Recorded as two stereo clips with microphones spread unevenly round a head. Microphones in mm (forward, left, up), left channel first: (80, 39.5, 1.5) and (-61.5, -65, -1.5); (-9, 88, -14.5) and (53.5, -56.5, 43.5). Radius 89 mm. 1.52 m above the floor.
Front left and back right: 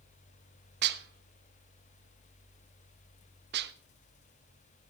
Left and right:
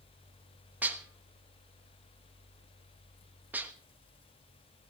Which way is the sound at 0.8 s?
135° right.